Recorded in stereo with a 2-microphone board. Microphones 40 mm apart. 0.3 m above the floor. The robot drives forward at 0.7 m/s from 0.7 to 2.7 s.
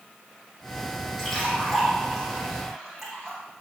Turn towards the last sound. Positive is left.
turn(degrees=5)  # may be behind; listen again after turning